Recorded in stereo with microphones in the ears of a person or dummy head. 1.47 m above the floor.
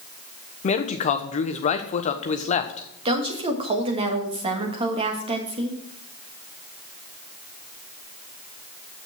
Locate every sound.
0.6 s a man speaking: 40° left (ahead or behind), 1.0 m
3.0 s a woman speaking: 25° right (ahead or behind), 1.6 m